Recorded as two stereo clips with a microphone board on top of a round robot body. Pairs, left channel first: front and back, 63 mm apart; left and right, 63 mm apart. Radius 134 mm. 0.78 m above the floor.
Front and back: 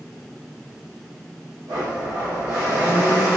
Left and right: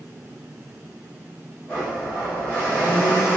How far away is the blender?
About 1.5 m.